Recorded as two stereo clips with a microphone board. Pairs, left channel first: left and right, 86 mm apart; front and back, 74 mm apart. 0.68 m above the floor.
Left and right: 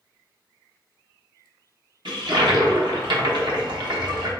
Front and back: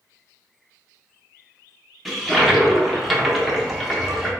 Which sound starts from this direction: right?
A toilet flushing, at 2.0 s.